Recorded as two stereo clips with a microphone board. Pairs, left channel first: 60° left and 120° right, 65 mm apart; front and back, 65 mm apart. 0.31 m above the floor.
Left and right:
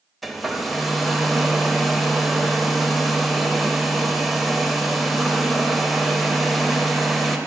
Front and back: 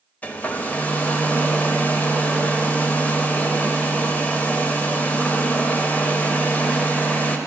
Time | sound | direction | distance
0.2 | a hair dryer | 35° right | 0.5 m